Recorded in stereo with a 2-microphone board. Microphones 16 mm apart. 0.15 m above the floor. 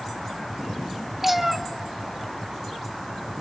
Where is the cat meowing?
20° right (ahead or behind), 0.6 m.